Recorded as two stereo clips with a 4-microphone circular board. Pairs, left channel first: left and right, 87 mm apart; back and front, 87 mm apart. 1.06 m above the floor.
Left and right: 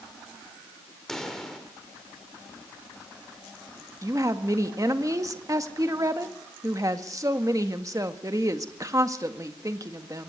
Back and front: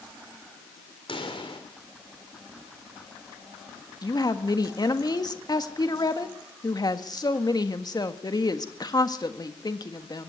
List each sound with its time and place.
1.1 s a pop: 175° left, 3 m
4.0 s a woman speaking: 140° right, 1.6 m